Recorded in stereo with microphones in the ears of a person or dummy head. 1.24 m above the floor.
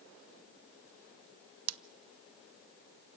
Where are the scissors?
75° right (ahead or behind), 0.6 m.